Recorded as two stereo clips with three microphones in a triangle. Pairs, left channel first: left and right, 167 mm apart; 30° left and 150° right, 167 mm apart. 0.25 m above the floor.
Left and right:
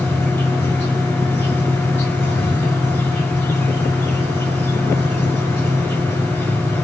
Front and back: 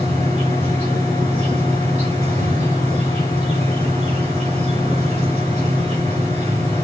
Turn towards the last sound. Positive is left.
turn(degrees=165)